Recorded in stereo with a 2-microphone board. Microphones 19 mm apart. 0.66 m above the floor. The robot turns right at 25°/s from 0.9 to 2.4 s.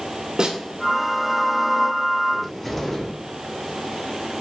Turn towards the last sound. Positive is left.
turn(degrees=10)  # may be behind; listen again after turning